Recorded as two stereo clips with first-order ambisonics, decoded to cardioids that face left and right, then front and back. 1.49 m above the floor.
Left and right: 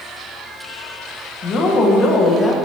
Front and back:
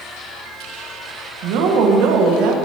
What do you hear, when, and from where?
1.4 s a woman speaking: 155° left, 1.7 m